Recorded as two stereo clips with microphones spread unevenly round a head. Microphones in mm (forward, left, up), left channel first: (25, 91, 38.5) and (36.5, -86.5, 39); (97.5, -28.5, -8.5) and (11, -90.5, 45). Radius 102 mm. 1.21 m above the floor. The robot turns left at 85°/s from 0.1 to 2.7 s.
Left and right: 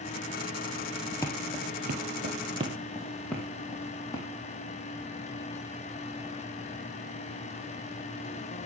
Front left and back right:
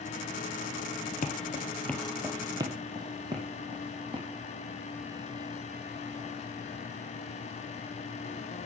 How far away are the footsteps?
About 2 m.